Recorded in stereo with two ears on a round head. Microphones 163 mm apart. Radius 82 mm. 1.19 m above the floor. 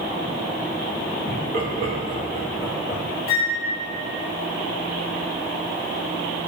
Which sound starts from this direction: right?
Laughter, at 1.3 s.